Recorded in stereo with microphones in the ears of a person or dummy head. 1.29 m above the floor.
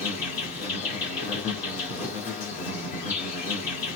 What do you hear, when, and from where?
0.0 s an insect: 30° left (ahead or behind), 1.8 m